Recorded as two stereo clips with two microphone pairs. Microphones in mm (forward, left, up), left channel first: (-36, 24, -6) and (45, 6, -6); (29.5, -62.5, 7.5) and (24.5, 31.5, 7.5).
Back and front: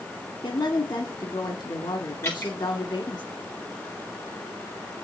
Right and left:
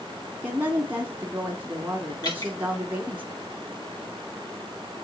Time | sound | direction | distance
0.4 | a woman speaking | 165° left | 2 m
2.2 | dripping | 135° right | 6 m